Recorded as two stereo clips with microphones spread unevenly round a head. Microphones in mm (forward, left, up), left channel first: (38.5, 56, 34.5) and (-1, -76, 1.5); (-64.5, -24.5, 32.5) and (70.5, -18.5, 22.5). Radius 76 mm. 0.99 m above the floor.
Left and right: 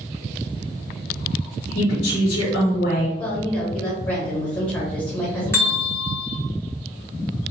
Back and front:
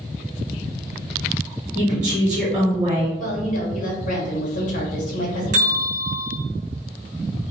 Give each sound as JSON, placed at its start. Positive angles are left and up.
{"t": 1.8, "sound": "a woman speaking", "azimuth_deg": 65, "distance_m": 1.1}
{"t": 3.2, "sound": "a woman speaking", "azimuth_deg": 160, "distance_m": 1.2}
{"t": 5.5, "sound": "a bell", "azimuth_deg": -10, "distance_m": 1.3}